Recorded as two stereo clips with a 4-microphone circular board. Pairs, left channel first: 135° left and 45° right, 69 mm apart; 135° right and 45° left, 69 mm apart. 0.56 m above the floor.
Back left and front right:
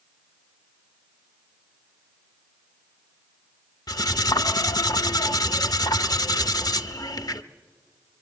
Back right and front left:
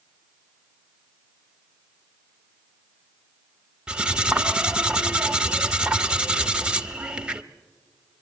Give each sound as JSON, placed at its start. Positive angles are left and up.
{"t": 3.9, "sound": "cutlery clinking", "azimuth_deg": 120, "distance_m": 0.7}